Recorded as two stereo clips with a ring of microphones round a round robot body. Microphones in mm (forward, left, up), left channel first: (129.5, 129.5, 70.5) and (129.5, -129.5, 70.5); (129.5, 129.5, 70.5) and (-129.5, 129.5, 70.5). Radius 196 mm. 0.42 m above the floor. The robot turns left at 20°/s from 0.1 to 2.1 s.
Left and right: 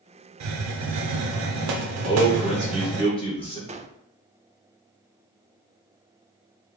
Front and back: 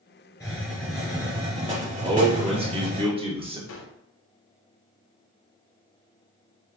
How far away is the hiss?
About 0.6 m.